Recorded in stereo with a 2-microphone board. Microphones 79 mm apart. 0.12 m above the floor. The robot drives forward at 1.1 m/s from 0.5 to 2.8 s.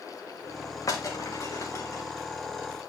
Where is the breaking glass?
40° left (ahead or behind), 5 m; by 2.0 s 35° left (ahead or behind), 6 m.